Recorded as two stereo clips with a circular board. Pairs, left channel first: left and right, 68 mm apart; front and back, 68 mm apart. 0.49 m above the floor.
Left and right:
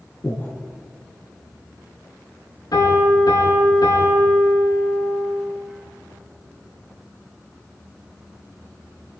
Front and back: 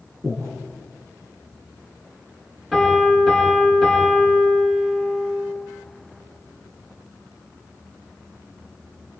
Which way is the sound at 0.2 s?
150° left.